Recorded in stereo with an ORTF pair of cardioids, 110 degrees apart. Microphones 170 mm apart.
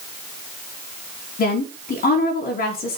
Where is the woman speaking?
60° left, 3 m.